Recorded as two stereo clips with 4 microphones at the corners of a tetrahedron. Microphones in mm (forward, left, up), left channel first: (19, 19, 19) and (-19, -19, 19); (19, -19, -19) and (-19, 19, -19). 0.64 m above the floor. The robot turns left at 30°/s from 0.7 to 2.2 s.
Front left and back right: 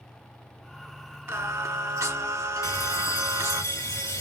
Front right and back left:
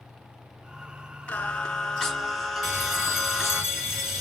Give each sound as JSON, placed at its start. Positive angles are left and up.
{"t": 1.3, "sound": "singing", "azimuth_deg": -105, "distance_m": 1.3}
{"t": 2.6, "sound": "a bell", "azimuth_deg": 50, "distance_m": 2.5}